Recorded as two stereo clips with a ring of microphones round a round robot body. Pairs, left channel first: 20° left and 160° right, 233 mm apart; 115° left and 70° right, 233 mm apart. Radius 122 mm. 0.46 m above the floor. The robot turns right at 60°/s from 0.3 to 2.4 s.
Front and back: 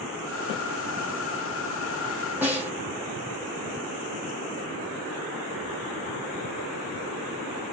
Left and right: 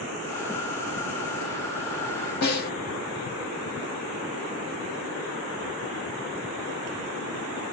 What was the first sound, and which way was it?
A snare drum, 125° left.